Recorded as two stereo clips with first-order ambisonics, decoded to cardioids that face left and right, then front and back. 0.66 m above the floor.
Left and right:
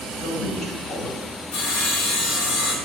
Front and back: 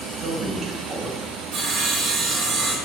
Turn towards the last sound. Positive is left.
turn(degrees=115)